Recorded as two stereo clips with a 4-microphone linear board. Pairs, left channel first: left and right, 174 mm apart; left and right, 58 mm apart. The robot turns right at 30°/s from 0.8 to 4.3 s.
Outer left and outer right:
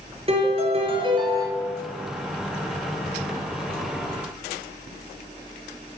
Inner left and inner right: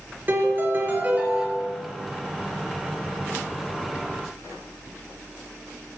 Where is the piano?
35° right (ahead or behind), 4 m; by 1.5 s 15° right (ahead or behind), 4 m.